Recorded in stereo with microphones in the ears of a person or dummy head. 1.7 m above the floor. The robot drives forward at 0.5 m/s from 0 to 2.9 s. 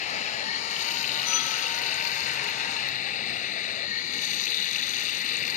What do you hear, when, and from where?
0.0 s running water: 45° left (ahead or behind); by 5.6 s 50° left (ahead or behind)